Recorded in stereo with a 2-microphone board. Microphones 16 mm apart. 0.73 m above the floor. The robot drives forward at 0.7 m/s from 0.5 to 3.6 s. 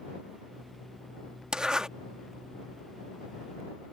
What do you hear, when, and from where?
1.5 s a zipper: 50° right (ahead or behind)